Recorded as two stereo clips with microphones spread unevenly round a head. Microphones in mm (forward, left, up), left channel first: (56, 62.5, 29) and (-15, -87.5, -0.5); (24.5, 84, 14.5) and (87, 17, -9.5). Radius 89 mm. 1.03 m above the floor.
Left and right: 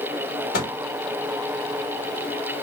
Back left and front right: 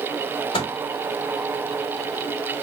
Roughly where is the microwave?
Left.